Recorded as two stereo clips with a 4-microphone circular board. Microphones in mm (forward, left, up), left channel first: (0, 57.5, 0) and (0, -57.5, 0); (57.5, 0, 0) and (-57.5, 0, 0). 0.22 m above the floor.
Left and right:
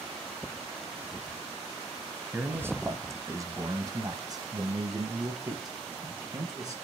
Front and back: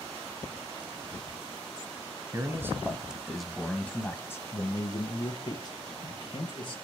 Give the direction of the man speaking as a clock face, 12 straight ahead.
5 o'clock.